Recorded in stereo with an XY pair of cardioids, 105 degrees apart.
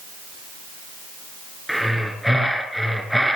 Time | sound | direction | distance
1.7 | breathing | straight ahead | 4.5 m